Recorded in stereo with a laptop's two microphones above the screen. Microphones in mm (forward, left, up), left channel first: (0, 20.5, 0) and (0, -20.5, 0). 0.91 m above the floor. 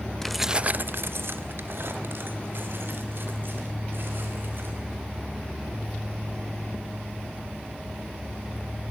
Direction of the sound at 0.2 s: 10° left (ahead or behind).